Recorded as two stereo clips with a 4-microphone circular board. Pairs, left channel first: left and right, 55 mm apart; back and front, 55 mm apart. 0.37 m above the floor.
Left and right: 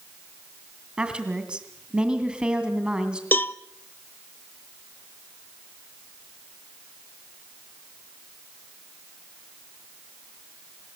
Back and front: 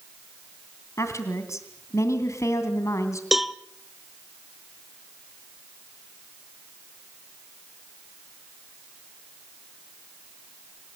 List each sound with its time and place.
1.0 s a woman speaking: 160° right, 2.5 m
3.3 s a cowbell: 85° left, 0.7 m